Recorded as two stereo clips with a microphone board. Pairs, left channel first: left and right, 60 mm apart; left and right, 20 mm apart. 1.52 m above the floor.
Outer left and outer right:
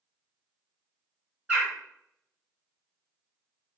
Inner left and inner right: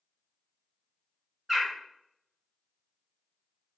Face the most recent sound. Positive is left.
turn(degrees=-25)  # may be behind; listen again after turning